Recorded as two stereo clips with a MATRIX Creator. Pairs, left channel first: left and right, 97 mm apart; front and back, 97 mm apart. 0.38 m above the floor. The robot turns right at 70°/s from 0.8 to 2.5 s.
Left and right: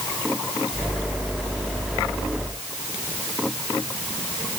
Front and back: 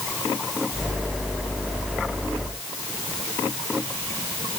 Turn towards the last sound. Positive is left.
No sound to turn to.